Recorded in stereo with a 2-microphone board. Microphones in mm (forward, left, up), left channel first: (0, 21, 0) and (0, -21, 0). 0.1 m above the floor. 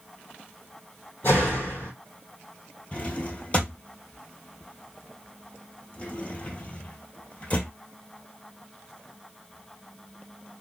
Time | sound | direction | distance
1.2 | a door slam | 55° left (ahead or behind) | 2.5 m
2.9 | a drawer | 35° left (ahead or behind) | 1.0 m